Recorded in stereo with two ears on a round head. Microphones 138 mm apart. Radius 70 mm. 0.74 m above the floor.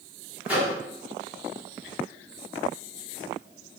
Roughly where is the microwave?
Centre.